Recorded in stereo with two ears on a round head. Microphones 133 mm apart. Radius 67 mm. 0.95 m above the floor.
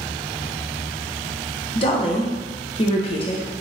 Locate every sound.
1.8 s a woman speaking: 40° left (ahead or behind), 0.9 m